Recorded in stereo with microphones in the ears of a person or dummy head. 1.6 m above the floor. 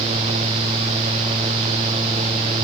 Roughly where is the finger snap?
No finger snap in this recording.